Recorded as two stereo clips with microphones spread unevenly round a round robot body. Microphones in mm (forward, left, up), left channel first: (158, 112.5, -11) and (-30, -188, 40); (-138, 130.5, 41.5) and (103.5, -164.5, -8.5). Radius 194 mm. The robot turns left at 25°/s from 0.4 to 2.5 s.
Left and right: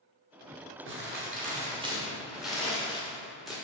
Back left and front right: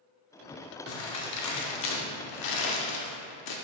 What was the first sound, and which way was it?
Crumpling, straight behind.